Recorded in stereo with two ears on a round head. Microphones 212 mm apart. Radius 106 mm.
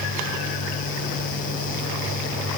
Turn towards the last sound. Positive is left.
No sound to turn to.